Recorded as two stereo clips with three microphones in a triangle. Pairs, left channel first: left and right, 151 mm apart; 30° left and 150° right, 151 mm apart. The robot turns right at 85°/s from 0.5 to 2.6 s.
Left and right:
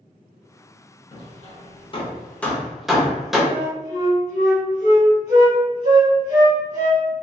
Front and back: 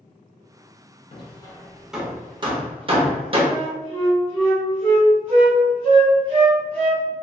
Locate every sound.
1.1 s hammering: 55° left, 0.6 m; by 3.4 s 175° right, 0.6 m
3.5 s a flute: 105° left, 1.2 m